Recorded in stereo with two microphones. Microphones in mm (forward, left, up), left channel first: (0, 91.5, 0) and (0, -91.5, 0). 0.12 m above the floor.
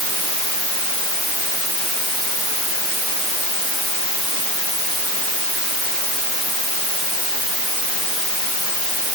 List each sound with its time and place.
Only background noise.